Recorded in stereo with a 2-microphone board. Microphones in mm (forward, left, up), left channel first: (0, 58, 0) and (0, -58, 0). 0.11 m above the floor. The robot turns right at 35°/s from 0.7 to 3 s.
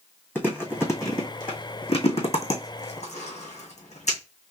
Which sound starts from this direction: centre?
Chewing, at 0.3 s.